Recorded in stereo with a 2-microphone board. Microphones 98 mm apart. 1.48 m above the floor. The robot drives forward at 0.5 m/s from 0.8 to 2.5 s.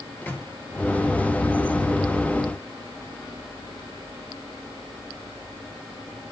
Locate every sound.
0.2 s a microwave: 20° left (ahead or behind), 1.6 m